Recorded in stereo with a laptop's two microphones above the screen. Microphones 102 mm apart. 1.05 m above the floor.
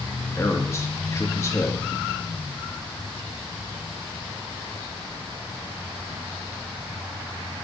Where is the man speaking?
25° left (ahead or behind), 1.5 m.